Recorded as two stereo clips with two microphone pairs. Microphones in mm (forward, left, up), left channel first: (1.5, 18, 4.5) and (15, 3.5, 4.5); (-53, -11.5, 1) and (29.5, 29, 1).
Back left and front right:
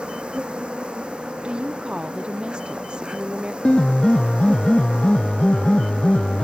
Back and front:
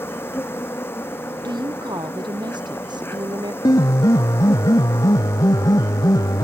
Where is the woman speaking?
10° right.